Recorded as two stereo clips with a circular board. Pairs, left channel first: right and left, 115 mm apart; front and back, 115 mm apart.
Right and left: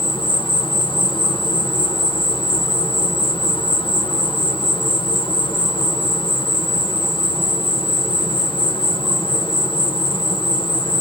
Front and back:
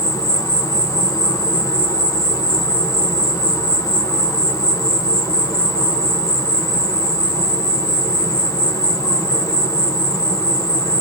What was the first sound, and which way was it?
An insect, 55° right.